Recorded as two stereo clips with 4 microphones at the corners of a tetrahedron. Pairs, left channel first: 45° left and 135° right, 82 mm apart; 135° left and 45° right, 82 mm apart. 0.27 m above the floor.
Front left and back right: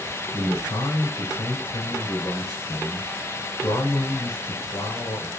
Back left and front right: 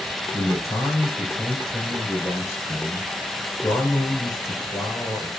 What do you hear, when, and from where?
0.3 s a man speaking: 85° left, 4.5 m